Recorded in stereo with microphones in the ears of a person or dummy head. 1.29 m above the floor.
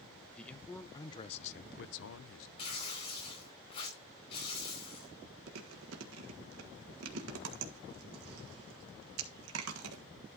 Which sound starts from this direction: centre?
A man speaking, at 0.4 s.